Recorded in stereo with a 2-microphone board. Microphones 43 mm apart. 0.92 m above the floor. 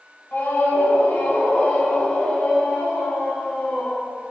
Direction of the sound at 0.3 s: 50° left (ahead or behind).